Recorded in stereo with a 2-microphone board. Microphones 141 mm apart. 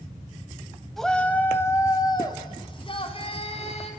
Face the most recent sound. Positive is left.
turn(degrees=50)  # may be behind; listen again after turning